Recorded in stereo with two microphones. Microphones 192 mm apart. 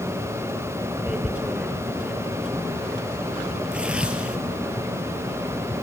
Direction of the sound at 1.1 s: 5° right (ahead or behind).